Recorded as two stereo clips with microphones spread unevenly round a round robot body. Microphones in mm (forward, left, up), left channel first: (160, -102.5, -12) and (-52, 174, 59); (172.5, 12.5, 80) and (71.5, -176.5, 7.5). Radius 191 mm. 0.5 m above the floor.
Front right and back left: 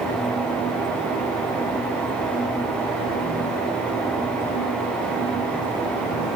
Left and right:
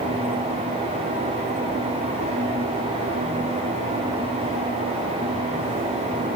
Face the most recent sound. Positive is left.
No sound to turn to.